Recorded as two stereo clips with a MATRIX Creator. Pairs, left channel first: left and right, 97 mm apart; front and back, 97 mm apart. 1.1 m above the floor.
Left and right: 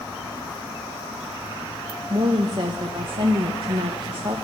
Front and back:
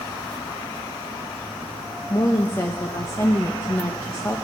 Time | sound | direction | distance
2.1 | a woman speaking | 60° right | 0.9 m